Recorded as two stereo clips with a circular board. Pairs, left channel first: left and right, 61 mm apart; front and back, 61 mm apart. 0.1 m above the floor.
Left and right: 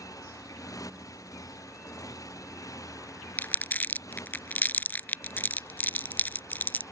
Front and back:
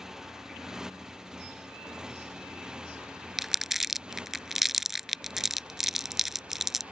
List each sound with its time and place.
0.0 s a motorcycle: 100° left; by 6.9 s 110° left
3.4 s crumpling: 100° left